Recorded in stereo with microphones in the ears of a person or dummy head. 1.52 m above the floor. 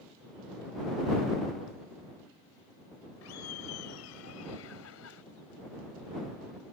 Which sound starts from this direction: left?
Laughter, at 3.2 s.